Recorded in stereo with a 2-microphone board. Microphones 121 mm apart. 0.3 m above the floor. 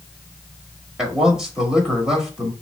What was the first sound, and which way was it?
A man speaking, 5° right (ahead or behind).